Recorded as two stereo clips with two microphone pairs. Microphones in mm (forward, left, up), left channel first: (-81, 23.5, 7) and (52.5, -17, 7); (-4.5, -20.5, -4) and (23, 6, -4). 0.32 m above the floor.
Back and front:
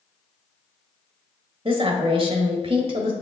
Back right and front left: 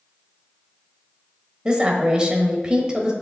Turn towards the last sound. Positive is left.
turn(degrees=-10)